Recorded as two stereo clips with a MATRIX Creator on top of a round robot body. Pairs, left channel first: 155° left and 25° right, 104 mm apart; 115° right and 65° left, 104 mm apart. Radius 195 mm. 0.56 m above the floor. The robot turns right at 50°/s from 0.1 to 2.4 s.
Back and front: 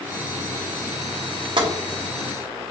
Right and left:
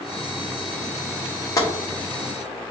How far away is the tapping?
About 1.3 m.